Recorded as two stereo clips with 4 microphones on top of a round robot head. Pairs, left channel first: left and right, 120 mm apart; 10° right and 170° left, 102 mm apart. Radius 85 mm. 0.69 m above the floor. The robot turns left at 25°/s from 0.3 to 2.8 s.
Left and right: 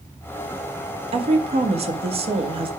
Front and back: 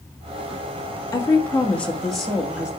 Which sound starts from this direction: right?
A woman speaking, at 1.1 s.